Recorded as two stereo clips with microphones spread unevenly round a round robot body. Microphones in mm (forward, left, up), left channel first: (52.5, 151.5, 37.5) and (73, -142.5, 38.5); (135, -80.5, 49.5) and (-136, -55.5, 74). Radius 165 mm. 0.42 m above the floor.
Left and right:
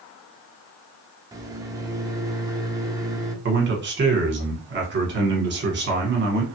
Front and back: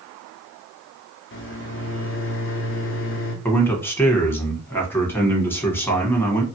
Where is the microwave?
10° right, 0.8 m.